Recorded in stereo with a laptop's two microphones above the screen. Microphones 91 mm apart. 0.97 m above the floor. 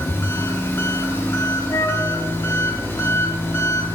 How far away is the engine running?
About 1.1 m.